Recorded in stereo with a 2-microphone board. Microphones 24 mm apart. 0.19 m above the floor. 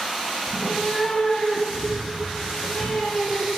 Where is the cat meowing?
15° right (ahead or behind), 0.6 m; by 3.5 s 65° left (ahead or behind), 2.5 m.